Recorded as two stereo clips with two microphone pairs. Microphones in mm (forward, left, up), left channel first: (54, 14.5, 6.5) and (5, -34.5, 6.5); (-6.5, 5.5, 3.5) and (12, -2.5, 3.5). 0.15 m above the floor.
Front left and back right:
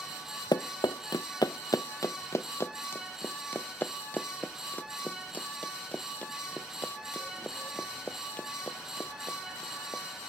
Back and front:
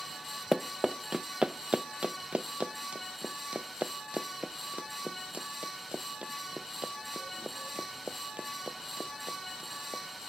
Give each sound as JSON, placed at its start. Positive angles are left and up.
{"t": 0.5, "sound": "running footsteps", "azimuth_deg": 55}